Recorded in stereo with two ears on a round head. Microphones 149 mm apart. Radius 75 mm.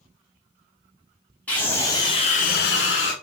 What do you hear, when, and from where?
1.5 s a scream: 10° left (ahead or behind), 1.6 m; by 3.1 s 70° left (ahead or behind), 0.9 m